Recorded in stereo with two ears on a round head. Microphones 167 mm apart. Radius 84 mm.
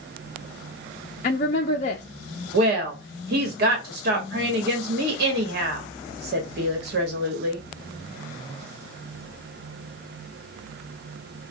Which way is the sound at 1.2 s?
45° left (ahead or behind).